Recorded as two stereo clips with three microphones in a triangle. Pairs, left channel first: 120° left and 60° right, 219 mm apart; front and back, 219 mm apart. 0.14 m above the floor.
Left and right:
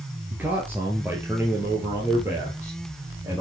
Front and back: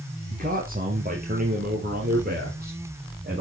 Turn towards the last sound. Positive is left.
turn(degrees=-140)